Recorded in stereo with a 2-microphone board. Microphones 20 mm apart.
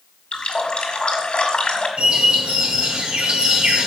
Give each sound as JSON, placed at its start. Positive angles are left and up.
{"t": 0.3, "sound": "a running tap", "side_deg": 50, "distance_m": 2.0}
{"t": 2.0, "sound": "a bird", "side_deg": -60, "distance_m": 2.0}